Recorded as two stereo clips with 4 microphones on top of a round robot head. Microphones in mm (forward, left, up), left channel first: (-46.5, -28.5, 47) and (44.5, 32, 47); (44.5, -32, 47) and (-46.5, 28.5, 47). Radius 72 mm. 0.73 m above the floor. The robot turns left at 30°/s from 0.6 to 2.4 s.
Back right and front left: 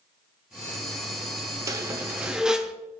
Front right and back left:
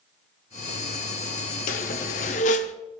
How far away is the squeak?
About 0.7 m.